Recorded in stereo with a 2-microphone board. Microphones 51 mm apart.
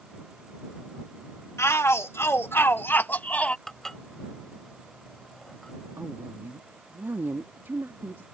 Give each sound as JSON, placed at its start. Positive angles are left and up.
{"t": 1.6, "sound": "a shout", "side_deg": 60}
{"t": 3.7, "sound": "dishes clattering", "side_deg": 10}
{"t": 6.0, "sound": "a woman speaking", "side_deg": -50}